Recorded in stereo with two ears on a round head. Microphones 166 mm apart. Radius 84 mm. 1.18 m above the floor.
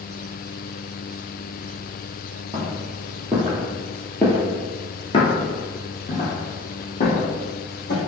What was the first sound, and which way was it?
Footsteps, 20° right (ahead or behind).